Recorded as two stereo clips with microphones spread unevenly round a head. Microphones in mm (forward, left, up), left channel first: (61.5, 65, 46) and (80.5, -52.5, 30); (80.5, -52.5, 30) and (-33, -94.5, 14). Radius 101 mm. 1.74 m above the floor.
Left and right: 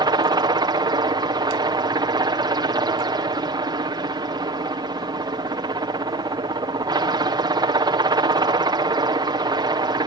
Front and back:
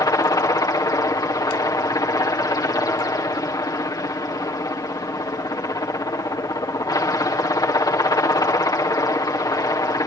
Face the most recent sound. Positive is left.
turn(degrees=-40)